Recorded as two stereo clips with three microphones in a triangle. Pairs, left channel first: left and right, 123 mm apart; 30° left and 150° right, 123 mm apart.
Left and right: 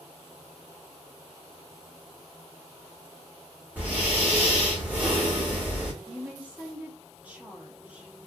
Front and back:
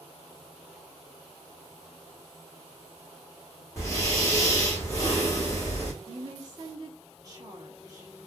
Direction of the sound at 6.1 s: 155° right.